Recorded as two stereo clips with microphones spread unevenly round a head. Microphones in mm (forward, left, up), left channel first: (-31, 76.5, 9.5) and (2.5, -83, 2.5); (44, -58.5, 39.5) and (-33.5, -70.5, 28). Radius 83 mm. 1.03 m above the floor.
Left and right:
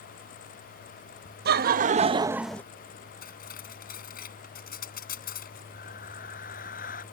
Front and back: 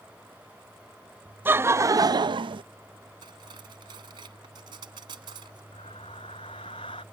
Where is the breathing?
60° left.